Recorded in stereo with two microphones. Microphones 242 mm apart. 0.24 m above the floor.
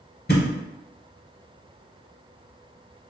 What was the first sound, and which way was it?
A thud, 40° left (ahead or behind).